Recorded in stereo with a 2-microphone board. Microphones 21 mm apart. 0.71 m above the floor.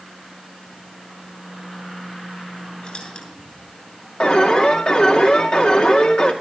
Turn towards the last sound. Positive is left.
turn(degrees=55)  # may be behind; listen again after turning